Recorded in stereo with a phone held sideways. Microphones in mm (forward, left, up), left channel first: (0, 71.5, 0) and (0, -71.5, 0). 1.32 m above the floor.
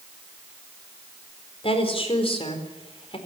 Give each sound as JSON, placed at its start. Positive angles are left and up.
{"t": 1.6, "sound": "a woman speaking", "side_deg": 45, "distance_m": 4.0}